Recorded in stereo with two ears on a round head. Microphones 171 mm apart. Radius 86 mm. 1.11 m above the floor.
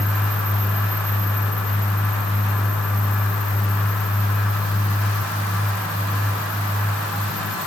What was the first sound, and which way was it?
Only background noise.